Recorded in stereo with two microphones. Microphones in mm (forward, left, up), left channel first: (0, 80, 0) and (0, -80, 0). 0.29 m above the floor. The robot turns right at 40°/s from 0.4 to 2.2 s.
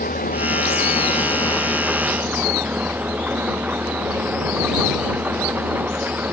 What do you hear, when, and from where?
0.0 s an engine running: 120° left; by 6.3 s 170° right